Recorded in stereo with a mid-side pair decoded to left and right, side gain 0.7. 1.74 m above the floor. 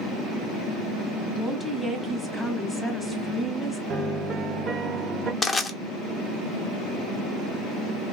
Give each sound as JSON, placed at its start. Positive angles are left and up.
{"t": 1.4, "sound": "a woman speaking", "azimuth_deg": 5, "distance_m": 0.9}
{"t": 3.9, "sound": "a piano", "azimuth_deg": -35, "distance_m": 0.5}
{"t": 5.4, "sound": "crushing", "azimuth_deg": 20, "distance_m": 0.8}